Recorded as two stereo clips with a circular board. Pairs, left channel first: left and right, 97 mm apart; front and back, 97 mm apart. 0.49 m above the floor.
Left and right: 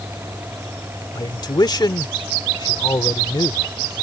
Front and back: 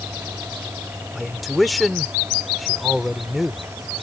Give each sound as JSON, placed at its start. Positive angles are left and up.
{"t": 1.1, "sound": "a man speaking", "azimuth_deg": 90}